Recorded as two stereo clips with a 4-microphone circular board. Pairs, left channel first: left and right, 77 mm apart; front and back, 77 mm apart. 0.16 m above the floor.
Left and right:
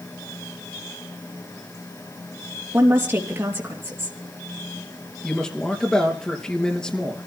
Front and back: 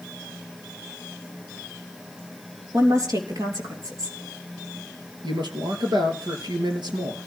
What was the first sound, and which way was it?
A woman speaking, 145° right.